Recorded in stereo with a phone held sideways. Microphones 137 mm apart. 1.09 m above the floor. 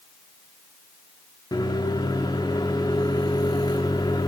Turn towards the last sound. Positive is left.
turn(degrees=30)  # may be behind; listen again after turning